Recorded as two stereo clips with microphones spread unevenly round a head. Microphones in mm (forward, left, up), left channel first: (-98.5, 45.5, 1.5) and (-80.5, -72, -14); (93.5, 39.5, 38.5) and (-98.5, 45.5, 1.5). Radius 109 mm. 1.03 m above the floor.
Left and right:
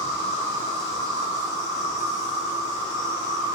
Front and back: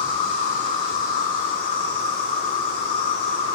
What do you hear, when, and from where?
0.0 s an insect: 20° right, 1.0 m